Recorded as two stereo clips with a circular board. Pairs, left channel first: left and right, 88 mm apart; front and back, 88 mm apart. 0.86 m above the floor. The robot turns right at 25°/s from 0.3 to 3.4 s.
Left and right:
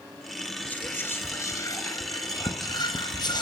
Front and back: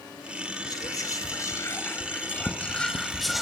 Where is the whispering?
25° left, 0.9 m; by 3.4 s 90° left, 0.9 m.